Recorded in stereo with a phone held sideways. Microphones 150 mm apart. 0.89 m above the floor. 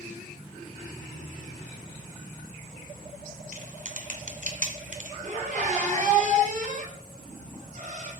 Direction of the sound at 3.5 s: 60° right (ahead or behind).